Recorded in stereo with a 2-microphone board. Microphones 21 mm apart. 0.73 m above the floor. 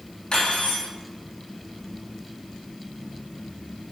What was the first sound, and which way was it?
Cutlery clinking, 50° left (ahead or behind).